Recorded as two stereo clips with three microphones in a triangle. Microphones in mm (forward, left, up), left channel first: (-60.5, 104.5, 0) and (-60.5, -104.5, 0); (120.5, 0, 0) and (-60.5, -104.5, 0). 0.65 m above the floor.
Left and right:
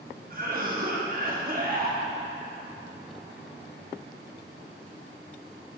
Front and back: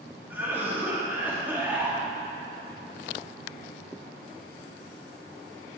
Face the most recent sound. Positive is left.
turn(degrees=-70)